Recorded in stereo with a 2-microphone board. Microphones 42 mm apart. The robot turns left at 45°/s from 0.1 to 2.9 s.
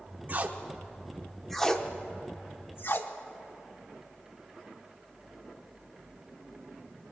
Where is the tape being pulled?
45° right (ahead or behind), 0.8 m; by 3.1 s 55° left (ahead or behind), 0.8 m.